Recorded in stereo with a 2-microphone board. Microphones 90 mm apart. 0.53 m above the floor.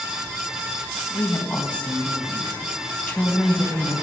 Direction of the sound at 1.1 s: 15° left (ahead or behind).